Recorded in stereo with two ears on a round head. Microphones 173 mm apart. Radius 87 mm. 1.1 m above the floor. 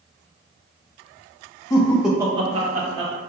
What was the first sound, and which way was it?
Laughter, 20° left (ahead or behind).